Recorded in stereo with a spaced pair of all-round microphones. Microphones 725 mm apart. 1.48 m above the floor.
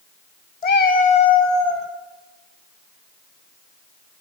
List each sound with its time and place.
0.6 s a cat meowing: 60° left (ahead or behind), 2.5 m; by 1.9 s 40° left (ahead or behind), 3 m